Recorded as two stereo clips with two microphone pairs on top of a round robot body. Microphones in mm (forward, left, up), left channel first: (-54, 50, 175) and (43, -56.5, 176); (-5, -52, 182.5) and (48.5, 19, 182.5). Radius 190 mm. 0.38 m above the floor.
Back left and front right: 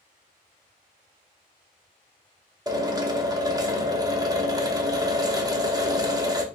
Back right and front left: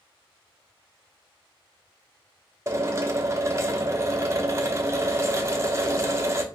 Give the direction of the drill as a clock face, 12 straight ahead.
12 o'clock.